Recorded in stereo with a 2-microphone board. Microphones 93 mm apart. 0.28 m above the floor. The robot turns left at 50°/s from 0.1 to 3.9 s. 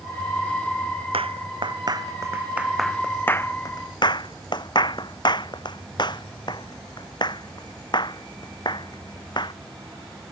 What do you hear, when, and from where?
1.1 s a clap: 85° right; by 9.5 s 55° left (ahead or behind)